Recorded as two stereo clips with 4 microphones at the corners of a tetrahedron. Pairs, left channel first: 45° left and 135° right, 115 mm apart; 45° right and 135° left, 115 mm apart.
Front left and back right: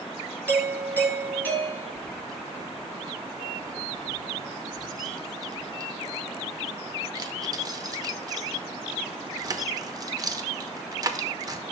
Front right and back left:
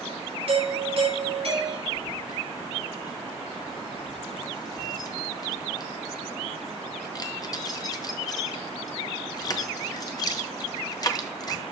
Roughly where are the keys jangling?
Right.